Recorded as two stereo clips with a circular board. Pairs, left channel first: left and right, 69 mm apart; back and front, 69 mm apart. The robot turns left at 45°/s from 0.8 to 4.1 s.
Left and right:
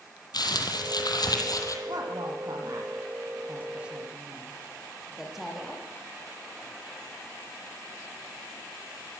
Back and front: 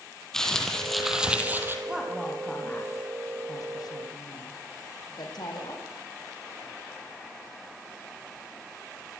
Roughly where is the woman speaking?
Right.